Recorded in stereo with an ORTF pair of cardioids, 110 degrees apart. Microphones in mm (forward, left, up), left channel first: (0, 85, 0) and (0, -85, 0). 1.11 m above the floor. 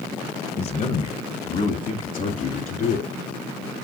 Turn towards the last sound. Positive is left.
turn(degrees=55)